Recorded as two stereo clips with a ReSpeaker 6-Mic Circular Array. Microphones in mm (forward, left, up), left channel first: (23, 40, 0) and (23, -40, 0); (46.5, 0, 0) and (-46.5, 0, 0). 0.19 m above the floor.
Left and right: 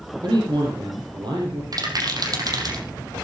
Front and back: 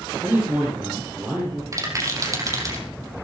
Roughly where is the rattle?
Behind right.